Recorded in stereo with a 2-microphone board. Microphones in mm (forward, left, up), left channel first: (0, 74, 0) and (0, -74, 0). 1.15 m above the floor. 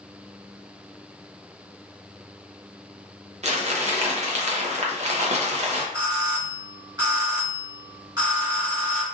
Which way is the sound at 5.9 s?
30° right (ahead or behind).